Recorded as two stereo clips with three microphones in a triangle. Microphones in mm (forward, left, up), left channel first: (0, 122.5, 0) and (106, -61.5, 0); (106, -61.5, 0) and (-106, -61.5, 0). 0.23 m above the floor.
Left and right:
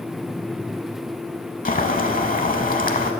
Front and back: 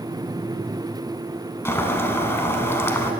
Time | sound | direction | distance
1.6 | boiling | 75° left | 0.7 m